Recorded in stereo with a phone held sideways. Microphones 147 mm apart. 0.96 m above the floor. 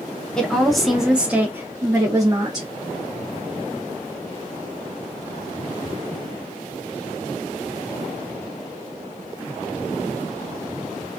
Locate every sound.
0.4 s a woman speaking: 5° left (ahead or behind), 0.9 m; by 2.7 s 25° right (ahead or behind), 0.9 m